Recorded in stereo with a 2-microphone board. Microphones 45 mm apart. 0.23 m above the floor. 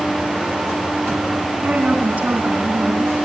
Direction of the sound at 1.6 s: 25° right (ahead or behind).